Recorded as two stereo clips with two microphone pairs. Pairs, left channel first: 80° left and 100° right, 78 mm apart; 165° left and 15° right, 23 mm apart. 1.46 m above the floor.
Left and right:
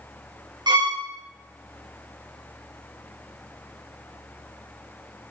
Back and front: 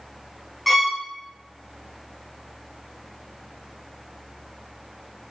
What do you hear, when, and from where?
0.7 s a violin: 110° right, 1.0 m